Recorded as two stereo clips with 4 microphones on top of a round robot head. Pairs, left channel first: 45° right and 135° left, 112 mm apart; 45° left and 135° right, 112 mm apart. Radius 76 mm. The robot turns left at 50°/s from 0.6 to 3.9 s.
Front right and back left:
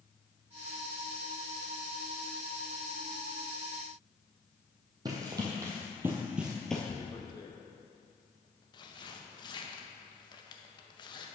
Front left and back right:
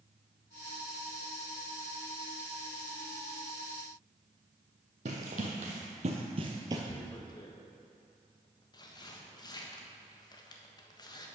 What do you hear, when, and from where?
5.0 s running footsteps: 165° right, 1.9 m; by 6.8 s 120° right, 1.0 m
6.9 s tearing paper: 5° right, 1.2 m